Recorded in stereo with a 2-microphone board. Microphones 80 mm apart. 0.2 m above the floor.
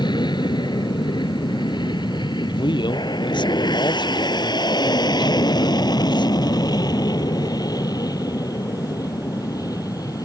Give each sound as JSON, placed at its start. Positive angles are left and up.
{"t": 0.0, "sound": "an aircraft", "side_deg": 65}
{"t": 2.5, "sound": "a man speaking", "side_deg": 70}